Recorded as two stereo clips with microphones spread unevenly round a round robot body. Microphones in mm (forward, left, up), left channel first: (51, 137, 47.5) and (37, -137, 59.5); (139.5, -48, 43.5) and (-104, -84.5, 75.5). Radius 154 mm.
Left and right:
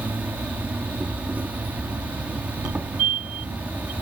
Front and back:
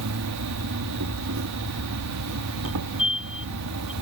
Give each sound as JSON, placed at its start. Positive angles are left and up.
{"t": 0.0, "sound": "an insect", "azimuth_deg": 180}
{"t": 2.6, "sound": "a fire alarm", "azimuth_deg": -60}